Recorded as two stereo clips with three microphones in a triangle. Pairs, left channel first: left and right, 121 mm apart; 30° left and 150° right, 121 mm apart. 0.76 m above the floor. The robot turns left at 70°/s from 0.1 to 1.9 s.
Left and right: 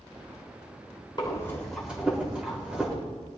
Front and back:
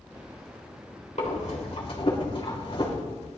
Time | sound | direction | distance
1.2 | breathing | 40° left | 3 m